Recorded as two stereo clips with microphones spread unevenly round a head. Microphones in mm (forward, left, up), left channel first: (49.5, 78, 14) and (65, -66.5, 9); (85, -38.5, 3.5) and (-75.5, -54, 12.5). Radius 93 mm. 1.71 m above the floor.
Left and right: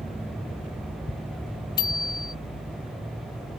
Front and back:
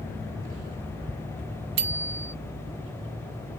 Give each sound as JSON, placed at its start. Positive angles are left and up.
{"t": 1.8, "sound": "a bicycle bell", "azimuth_deg": 165}